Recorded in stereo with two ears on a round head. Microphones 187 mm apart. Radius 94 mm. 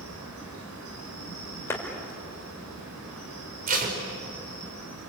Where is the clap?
15° left (ahead or behind), 4 m.